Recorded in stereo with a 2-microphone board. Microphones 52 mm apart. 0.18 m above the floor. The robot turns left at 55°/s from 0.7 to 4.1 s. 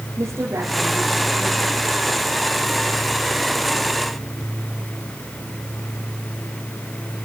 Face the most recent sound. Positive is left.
turn(degrees=90)